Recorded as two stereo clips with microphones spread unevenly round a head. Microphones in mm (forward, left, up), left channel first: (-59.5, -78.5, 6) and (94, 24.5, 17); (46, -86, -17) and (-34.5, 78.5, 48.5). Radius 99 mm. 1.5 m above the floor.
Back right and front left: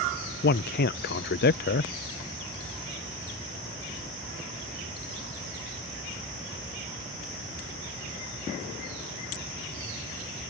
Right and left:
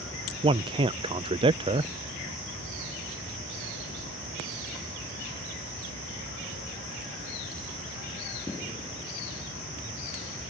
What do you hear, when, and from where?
0.4 s a man speaking: 170° right